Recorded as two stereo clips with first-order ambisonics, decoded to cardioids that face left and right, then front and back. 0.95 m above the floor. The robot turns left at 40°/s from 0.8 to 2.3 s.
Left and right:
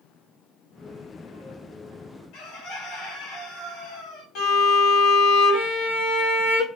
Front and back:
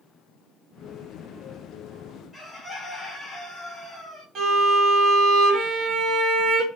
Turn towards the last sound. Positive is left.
turn(degrees=130)